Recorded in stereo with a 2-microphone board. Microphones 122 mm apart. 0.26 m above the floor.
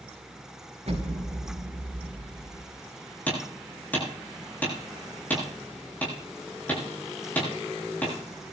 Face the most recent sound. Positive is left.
turn(degrees=15)  # may be behind; listen again after turning